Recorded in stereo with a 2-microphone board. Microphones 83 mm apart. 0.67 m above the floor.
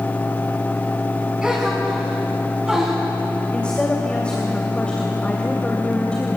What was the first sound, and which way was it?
A gasp, 10° right (ahead or behind).